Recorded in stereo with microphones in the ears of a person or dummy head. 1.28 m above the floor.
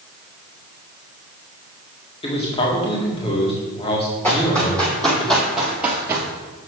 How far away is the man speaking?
About 1.8 m.